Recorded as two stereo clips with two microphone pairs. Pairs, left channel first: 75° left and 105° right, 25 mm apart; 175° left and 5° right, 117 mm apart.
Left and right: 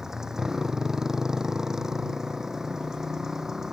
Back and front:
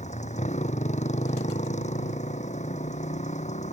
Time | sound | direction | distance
0.0 | a motorcycle | straight behind | ?